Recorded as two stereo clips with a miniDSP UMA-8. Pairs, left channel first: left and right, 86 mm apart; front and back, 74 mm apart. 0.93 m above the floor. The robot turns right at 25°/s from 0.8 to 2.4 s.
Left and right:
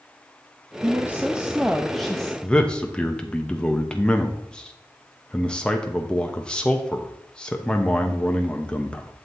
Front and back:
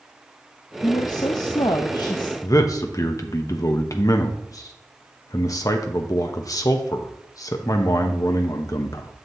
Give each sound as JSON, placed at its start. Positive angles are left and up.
{"t": 0.8, "sound": "a woman speaking", "azimuth_deg": -30, "distance_m": 0.6}
{"t": 2.4, "sound": "a man speaking", "azimuth_deg": 15, "distance_m": 0.8}